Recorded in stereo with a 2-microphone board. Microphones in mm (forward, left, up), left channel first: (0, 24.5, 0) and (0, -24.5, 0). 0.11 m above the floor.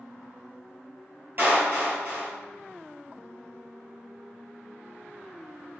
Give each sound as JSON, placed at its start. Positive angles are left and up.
{"t": 1.4, "sound": "a clap", "side_deg": -45, "distance_m": 1.9}